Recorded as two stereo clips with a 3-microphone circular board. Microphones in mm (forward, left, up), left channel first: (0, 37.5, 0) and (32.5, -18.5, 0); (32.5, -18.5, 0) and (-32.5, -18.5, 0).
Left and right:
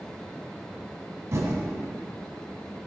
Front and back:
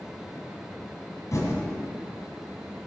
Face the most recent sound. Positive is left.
turn(degrees=-25)